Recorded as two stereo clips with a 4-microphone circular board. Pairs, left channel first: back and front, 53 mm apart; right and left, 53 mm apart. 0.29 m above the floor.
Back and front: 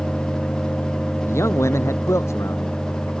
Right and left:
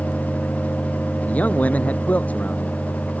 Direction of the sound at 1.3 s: 150° right.